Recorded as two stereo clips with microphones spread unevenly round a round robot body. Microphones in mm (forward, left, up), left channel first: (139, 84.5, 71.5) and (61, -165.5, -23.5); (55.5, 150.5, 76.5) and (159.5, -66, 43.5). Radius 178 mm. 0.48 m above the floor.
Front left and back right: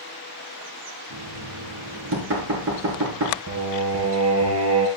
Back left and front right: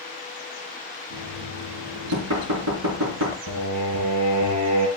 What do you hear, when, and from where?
1.1 s knocking: 75° right, 4.5 m
3.5 s singing: 75° right, 3 m